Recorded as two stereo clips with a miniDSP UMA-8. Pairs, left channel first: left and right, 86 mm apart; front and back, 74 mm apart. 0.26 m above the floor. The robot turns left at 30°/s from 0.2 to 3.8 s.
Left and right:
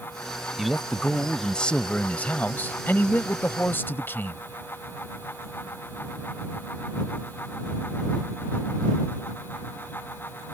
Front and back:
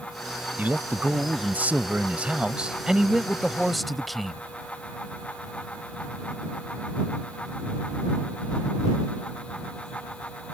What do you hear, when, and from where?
0.6 s a man speaking: 175° right; by 4.4 s 85° left